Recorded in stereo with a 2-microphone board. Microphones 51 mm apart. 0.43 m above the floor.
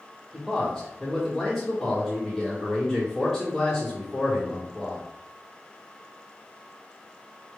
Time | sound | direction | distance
0.3 | a man speaking | 5° left (ahead or behind) | 1.0 m